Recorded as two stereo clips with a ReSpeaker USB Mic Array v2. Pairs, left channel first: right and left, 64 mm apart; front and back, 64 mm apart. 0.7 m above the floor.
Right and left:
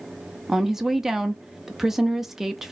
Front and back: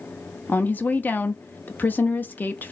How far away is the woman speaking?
About 0.6 m.